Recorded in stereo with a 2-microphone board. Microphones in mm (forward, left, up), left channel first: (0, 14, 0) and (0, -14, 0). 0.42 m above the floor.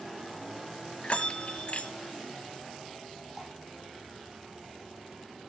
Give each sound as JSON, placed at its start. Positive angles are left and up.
{"t": 1.0, "sound": "a bell", "side_deg": 45, "distance_m": 1.2}
{"t": 3.4, "sound": "dripping", "side_deg": -10, "distance_m": 6.5}